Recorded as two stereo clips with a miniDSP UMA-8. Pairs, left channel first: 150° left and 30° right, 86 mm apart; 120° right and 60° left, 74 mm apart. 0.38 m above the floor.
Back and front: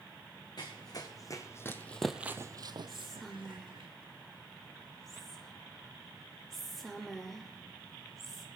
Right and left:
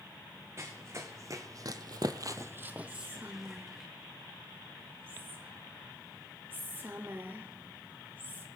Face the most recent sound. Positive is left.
turn(degrees=65)